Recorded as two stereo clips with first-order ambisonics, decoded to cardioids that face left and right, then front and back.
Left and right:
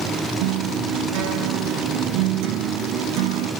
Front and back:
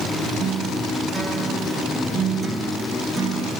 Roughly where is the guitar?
Right.